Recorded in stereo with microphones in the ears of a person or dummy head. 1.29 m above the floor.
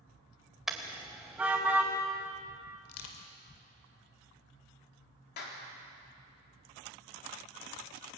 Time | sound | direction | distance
0.7 | a car horn | centre (ahead or behind) | 2 m
2.9 | crushing | 75° left (ahead or behind) | 2.5 m
5.4 | a clap | 55° left (ahead or behind) | 3.5 m